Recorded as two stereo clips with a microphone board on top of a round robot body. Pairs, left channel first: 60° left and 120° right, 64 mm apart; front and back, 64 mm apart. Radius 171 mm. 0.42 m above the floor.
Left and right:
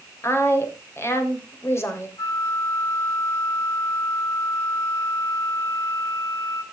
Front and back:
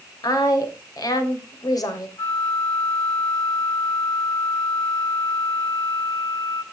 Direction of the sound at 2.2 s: 25° left.